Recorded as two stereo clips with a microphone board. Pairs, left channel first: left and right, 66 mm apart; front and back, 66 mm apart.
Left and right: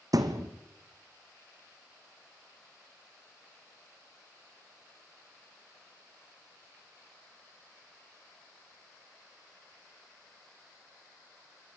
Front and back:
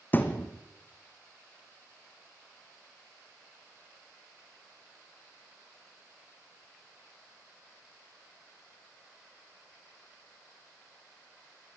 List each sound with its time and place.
0.1 s a thud: 60° right, 2 m